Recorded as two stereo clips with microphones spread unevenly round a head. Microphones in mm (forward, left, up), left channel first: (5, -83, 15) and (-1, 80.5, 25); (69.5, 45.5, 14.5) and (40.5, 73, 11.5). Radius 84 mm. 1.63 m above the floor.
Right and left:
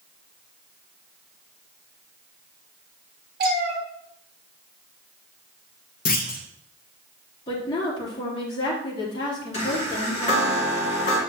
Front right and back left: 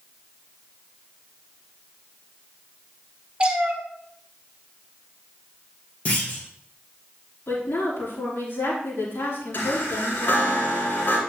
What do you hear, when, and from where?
3.4 s a cat meowing: 75° left, 1.9 m
6.0 s a clunk: 85° right, 0.9 m
7.5 s a woman speaking: 25° right, 3.5 m
9.5 s a chime: 35° right, 3 m